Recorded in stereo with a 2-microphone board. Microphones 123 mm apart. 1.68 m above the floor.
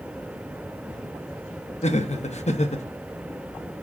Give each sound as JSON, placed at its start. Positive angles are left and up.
{"t": 1.8, "sound": "laughter", "side_deg": 65, "distance_m": 0.8}